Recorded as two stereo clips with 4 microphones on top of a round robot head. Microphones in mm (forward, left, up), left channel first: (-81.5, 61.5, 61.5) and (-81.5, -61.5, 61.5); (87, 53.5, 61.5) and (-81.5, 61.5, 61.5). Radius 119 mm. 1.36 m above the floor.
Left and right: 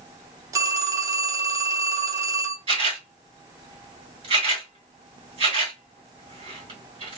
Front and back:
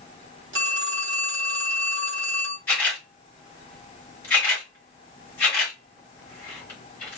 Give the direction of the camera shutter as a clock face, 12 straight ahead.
3 o'clock.